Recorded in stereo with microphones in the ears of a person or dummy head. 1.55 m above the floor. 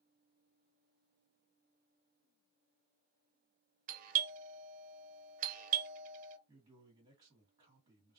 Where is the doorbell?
45° right (ahead or behind), 0.7 m.